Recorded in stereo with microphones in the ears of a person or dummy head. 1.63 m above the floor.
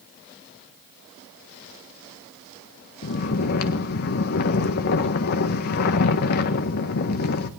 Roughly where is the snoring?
Left.